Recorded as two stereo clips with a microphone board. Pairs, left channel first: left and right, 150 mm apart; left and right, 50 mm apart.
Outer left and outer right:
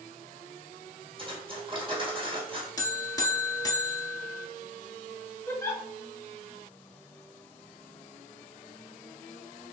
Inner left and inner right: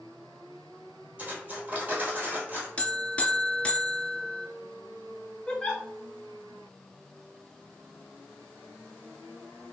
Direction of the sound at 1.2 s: 35° right (ahead or behind).